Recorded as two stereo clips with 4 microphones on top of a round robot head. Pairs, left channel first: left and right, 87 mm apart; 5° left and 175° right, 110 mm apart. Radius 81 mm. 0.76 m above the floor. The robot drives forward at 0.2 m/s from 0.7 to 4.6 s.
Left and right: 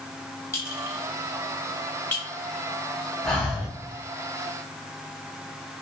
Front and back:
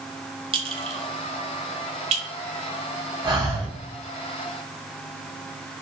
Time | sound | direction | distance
0.5 | a clink | 150° left | 0.7 m
3.2 | breathing | 170° left | 1.2 m